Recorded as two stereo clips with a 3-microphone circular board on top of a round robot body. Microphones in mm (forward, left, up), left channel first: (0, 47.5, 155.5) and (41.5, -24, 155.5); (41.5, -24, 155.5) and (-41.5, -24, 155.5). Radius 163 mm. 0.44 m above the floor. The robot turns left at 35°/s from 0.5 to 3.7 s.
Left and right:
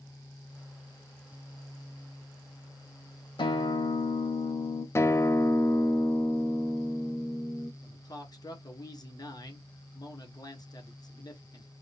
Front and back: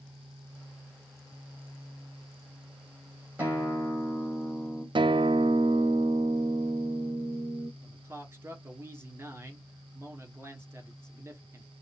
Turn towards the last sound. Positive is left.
turn(degrees=130)